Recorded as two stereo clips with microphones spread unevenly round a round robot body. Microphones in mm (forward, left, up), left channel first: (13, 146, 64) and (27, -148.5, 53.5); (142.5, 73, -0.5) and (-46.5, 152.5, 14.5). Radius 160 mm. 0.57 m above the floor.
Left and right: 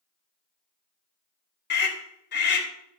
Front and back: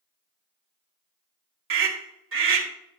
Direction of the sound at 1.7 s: 145° left.